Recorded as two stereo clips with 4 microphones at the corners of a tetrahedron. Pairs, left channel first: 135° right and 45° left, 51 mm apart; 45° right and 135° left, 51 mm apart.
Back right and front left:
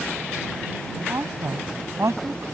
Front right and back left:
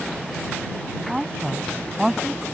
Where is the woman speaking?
55° left.